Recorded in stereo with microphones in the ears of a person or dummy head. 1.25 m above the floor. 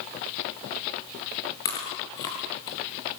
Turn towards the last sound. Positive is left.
turn(degrees=20)  # may be behind; listen again after turning